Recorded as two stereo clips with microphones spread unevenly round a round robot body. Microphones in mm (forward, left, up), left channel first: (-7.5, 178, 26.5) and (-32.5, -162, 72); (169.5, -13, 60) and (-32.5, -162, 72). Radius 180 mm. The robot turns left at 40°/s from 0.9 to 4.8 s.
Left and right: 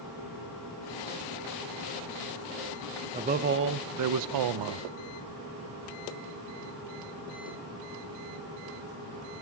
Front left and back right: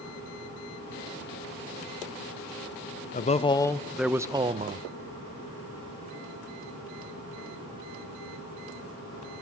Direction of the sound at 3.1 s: 20° right.